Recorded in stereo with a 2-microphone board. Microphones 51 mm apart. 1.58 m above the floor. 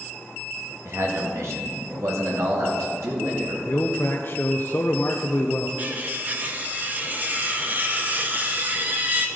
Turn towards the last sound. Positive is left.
turn(degrees=-35)  # may be behind; listen again after turning